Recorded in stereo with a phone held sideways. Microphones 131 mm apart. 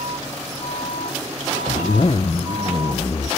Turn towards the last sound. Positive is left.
turn(degrees=50)  # may be behind; listen again after turning